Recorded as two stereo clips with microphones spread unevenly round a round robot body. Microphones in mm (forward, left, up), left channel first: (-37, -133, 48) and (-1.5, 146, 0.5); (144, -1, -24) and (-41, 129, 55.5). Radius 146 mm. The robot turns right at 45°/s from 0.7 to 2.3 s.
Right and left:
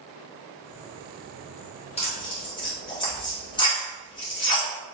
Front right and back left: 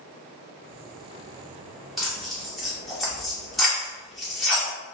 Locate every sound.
2.0 s tearing paper: 40° right, 0.9 m; by 4.7 s 25° right, 0.9 m